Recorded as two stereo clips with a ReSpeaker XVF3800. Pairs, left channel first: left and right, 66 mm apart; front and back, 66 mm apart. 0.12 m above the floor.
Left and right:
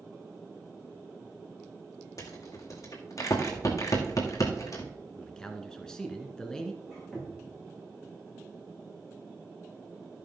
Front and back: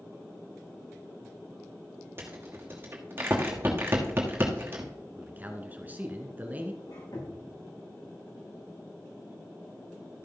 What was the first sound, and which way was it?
A rattle, 125° left.